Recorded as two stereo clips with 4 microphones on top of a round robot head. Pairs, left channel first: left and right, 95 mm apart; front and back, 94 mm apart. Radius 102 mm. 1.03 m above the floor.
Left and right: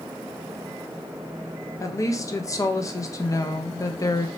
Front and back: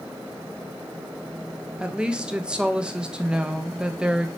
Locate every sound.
1.8 s a woman speaking: 105° left, 0.6 m